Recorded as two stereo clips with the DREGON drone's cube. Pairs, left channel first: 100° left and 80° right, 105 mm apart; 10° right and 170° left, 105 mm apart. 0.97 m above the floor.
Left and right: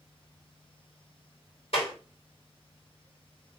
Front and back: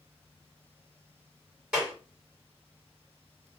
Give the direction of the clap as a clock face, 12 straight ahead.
9 o'clock.